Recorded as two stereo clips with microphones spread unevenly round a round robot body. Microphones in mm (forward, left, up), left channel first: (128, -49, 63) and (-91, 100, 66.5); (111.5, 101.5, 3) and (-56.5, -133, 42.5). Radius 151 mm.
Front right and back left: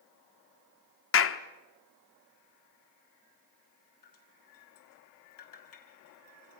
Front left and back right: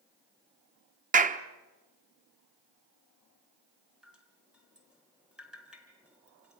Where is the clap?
60° right, 1.2 m.